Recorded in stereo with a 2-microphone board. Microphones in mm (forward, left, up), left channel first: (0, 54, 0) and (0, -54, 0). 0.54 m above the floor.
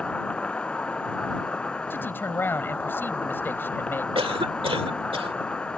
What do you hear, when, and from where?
0.0 s an insect: 10° left (ahead or behind)
1.9 s a man speaking: 20° left (ahead or behind)
4.2 s a cough: 60° right (ahead or behind)